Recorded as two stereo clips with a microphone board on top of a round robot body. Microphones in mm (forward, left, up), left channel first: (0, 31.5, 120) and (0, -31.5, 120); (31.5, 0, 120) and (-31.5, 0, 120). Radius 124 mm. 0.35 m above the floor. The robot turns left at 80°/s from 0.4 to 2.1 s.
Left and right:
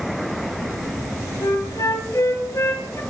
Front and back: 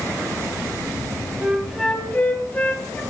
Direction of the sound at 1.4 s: 115° left.